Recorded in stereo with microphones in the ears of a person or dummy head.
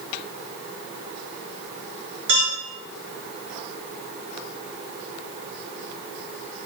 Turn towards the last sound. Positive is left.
turn(degrees=-65)  # may be behind; listen again after turning